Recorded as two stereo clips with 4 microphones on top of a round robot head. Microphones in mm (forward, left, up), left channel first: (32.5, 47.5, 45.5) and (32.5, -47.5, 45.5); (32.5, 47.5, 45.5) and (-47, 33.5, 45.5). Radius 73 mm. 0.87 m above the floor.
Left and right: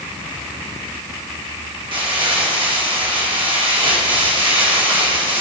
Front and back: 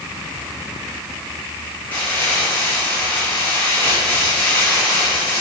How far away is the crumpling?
About 3 m.